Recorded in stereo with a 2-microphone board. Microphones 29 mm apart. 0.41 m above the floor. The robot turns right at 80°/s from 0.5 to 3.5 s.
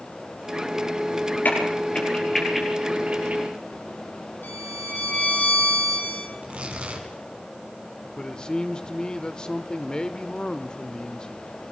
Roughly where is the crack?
Left.